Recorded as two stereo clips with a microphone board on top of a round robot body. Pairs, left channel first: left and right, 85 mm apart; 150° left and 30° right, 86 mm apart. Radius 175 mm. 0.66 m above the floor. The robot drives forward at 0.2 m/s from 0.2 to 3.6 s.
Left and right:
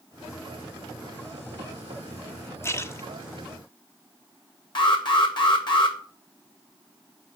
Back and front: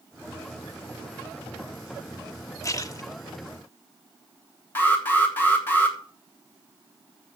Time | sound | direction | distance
2.6 | a splash | 130° left | 1.1 m
4.8 | an alarm | 85° left | 3 m